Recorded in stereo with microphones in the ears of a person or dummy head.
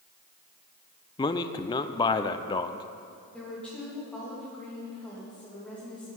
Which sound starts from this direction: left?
A man speaking, at 1.2 s.